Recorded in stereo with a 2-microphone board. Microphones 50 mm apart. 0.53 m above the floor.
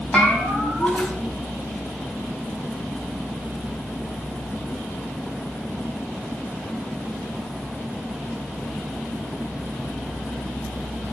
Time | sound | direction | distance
0.1 | a bell | 20° left (ahead or behind) | 4.5 m